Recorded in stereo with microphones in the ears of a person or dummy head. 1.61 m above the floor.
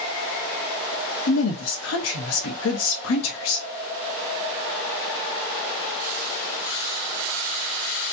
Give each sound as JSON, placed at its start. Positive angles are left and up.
{"t": 1.3, "sound": "a woman speaking", "side_deg": 80, "distance_m": 1.1}